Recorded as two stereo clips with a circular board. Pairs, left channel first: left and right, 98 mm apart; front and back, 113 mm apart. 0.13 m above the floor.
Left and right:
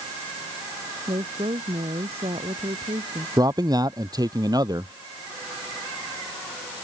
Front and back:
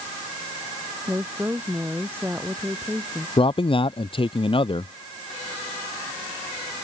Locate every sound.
1.1 s a woman speaking: 110° right; by 3.3 s 100° right
3.4 s a man speaking: 40° right